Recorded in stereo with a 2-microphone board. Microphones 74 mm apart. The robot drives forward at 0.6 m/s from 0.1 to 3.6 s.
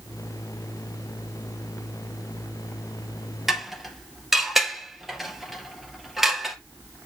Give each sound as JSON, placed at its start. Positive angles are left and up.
{"t": 3.5, "sound": "dishes clattering", "side_deg": -5, "distance_m": 2.0}